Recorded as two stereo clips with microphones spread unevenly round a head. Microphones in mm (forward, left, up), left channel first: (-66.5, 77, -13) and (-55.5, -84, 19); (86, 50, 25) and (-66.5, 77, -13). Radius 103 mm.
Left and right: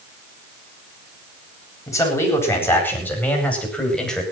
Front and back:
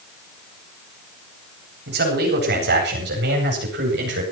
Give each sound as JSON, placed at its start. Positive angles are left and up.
{"t": 1.9, "sound": "a man speaking", "azimuth_deg": 165, "distance_m": 8.5}